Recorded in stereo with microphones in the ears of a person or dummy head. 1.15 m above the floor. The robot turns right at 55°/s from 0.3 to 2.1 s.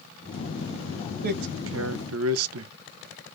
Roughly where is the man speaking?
Behind right.